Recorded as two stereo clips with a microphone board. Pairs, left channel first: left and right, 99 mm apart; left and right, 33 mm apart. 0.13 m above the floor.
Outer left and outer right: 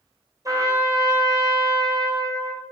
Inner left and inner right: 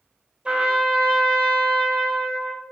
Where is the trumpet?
35° right (ahead or behind), 0.6 m.